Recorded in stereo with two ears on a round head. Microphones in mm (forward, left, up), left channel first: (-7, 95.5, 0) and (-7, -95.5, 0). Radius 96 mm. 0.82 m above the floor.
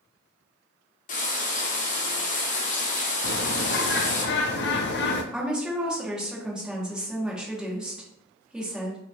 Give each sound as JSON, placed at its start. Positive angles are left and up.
{"t": 1.1, "sound": "frying", "side_deg": 40, "distance_m": 1.1}
{"t": 3.2, "sound": "a bird", "side_deg": 55, "distance_m": 0.6}
{"t": 5.3, "sound": "a woman speaking", "side_deg": -5, "distance_m": 1.2}